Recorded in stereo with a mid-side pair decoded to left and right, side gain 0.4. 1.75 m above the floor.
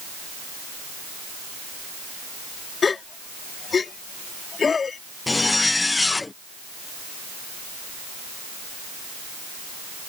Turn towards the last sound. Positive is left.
turn(degrees=25)